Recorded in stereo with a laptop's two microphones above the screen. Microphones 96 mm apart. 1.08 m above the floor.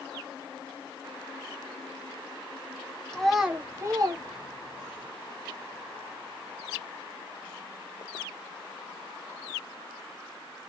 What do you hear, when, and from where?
3.1 s a child speaking: 10° left (ahead or behind), 0.6 m; by 5.0 s 75° right (ahead or behind), 0.9 m